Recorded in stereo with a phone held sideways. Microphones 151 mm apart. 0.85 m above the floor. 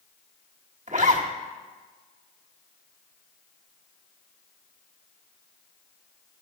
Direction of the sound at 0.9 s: 50° right (ahead or behind).